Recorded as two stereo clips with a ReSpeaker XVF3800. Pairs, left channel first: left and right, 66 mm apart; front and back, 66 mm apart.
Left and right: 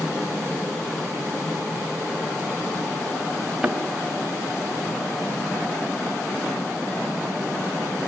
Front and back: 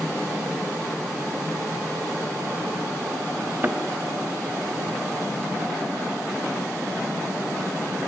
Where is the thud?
170° right, 0.7 m.